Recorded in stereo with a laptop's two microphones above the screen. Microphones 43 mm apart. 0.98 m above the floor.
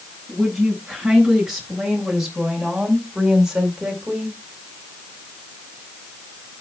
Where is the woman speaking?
5° right (ahead or behind), 8.5 m; by 4.4 s 15° right (ahead or behind), 4.5 m.